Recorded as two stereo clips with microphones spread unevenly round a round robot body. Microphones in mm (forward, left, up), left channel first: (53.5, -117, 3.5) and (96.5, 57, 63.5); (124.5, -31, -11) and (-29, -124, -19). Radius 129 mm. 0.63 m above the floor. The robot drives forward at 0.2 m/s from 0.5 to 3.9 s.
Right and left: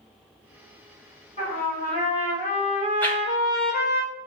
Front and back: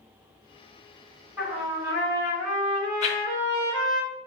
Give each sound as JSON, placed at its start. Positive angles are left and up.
{"t": 1.4, "sound": "a trumpet", "azimuth_deg": -75, "distance_m": 2.0}
{"t": 3.0, "sound": "a whoosh", "azimuth_deg": -25, "distance_m": 1.0}